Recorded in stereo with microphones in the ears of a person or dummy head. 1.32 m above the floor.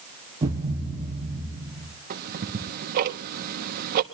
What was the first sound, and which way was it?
A thud, 25° right (ahead or behind).